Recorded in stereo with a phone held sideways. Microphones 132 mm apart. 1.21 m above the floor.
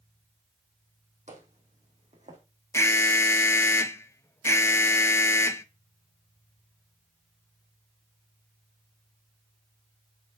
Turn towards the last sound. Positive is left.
turn(degrees=20)  # may be behind; listen again after turning